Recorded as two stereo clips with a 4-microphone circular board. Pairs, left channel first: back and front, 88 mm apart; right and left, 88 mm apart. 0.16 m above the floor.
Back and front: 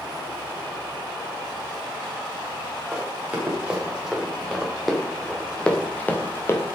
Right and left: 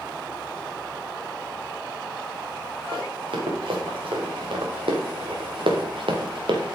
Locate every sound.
2.9 s running footsteps: 75° left, 3.5 m; by 6.8 s 120° left, 1.8 m